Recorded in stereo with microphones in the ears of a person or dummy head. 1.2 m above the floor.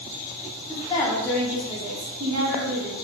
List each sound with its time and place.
0.7 s a woman speaking: 30° left (ahead or behind), 0.8 m; by 2.9 s 50° right (ahead or behind), 0.8 m